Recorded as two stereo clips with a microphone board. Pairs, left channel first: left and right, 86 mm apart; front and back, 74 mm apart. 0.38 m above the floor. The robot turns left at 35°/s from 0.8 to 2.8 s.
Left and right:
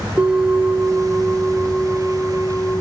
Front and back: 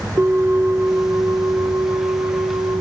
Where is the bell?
145° right, 0.7 m; by 2.8 s 145° left, 0.7 m.